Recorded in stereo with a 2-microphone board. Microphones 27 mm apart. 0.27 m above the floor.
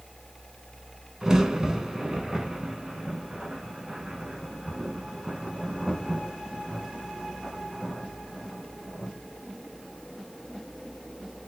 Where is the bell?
I don't hear a bell.